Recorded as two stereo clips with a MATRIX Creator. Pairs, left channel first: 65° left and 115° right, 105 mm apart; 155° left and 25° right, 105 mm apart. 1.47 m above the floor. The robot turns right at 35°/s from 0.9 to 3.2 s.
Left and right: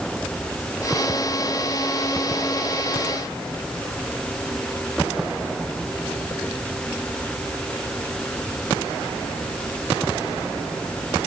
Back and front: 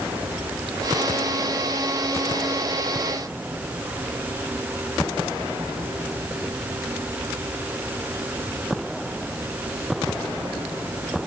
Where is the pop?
No pop in this recording.